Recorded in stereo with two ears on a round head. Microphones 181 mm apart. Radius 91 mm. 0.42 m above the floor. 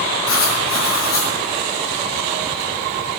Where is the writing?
80° left, 7.5 m.